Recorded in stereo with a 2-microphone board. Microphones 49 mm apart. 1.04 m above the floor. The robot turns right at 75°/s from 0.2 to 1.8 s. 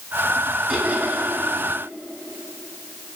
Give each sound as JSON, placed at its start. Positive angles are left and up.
{"t": 0.7, "sound": "laughter", "azimuth_deg": -170, "distance_m": 8.5}